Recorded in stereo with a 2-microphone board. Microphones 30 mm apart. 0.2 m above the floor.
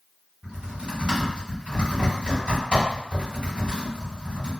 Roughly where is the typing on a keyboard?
Right.